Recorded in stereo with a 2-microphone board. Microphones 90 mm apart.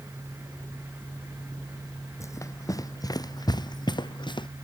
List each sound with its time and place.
2.2 s running footsteps: 35° left (ahead or behind); by 4.5 s 60° left (ahead or behind)